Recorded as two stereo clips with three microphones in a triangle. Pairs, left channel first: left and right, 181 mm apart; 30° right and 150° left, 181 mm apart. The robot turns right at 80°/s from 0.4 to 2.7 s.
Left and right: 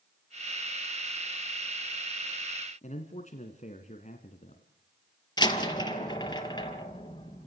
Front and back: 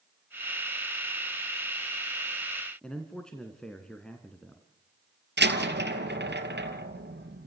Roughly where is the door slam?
Behind left.